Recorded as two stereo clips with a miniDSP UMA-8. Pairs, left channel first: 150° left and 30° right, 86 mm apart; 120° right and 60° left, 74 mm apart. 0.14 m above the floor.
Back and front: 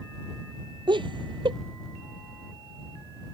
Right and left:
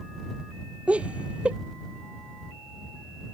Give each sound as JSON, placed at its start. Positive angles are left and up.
{"t": 0.9, "sound": "laughter", "azimuth_deg": -15}